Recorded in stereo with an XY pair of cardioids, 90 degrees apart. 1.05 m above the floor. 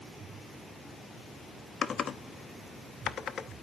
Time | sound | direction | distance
1.8 | typing on a keyboard | 55° left | 0.8 m